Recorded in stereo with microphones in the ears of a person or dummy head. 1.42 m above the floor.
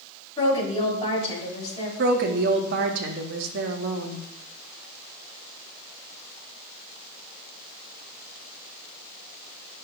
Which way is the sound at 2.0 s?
60° right (ahead or behind).